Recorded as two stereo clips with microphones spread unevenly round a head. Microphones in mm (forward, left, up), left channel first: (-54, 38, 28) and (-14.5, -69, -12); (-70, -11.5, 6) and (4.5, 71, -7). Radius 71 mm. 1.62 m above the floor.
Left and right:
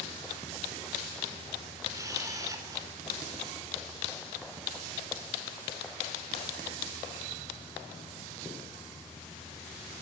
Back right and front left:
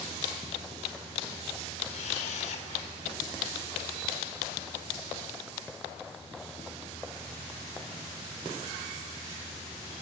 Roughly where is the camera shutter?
Behind right.